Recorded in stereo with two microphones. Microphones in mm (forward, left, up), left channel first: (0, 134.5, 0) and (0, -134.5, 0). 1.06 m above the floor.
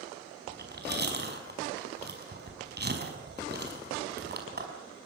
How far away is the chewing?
About 5.5 m.